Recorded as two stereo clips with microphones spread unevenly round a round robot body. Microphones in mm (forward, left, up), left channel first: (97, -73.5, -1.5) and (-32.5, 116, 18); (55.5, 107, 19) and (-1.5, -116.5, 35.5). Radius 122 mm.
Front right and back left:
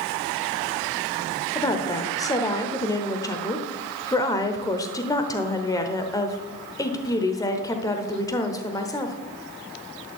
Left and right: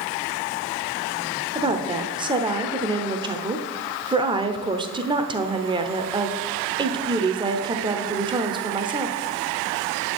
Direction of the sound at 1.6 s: 70° right.